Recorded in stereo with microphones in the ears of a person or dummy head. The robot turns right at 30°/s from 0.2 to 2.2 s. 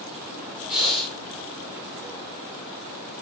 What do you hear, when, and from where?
0.7 s breathing: 5° right (ahead or behind), 0.7 m; by 1.1 s 5° left (ahead or behind), 0.7 m